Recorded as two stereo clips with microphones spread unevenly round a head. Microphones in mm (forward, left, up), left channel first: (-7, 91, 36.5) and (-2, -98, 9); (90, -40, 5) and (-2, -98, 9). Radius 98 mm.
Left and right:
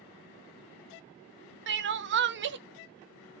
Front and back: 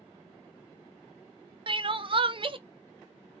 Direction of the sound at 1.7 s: 105° right.